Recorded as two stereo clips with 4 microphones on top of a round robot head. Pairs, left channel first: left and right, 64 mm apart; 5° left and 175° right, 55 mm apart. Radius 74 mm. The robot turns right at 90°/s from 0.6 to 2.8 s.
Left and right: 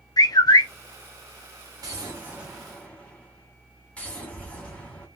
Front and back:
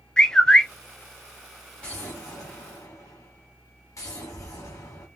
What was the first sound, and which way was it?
A bird, 80° left.